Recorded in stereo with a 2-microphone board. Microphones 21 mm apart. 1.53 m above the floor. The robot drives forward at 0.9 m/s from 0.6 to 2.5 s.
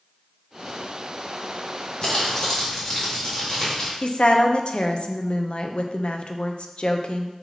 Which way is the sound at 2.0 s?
40° left (ahead or behind).